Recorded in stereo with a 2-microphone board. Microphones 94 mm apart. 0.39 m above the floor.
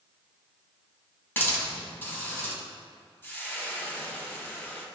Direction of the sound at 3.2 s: 20° left (ahead or behind).